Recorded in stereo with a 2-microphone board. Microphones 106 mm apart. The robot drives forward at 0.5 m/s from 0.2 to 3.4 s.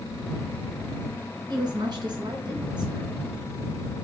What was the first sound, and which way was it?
A woman speaking, 45° right (ahead or behind).